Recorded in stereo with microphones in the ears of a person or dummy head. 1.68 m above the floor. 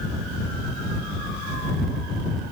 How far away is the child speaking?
I don't hear a child speaking.